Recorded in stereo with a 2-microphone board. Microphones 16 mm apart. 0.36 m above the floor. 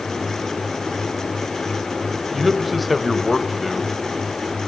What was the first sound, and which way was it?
A man speaking, centre (ahead or behind).